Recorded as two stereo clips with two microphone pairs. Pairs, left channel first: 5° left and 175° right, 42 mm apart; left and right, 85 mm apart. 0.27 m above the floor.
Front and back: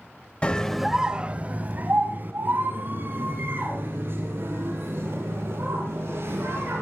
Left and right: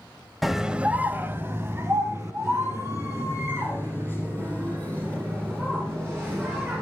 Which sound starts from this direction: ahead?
A scream, at 0.4 s.